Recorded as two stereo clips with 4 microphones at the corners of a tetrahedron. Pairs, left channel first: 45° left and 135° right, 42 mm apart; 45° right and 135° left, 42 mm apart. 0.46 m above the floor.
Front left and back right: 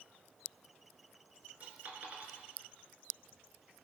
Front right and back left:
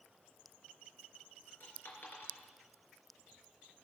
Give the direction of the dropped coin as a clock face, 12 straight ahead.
3 o'clock.